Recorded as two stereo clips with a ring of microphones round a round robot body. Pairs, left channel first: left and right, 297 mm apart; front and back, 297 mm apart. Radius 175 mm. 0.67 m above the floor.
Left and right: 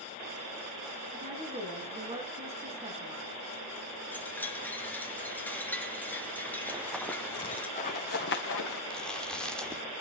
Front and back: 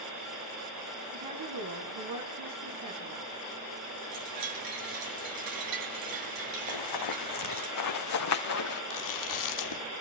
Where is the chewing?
5° left, 1.6 m.